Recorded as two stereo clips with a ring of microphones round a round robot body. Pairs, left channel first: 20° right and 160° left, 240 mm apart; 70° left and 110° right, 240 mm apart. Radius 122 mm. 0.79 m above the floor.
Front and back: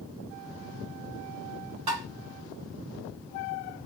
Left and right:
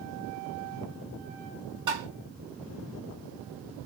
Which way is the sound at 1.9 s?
175° left.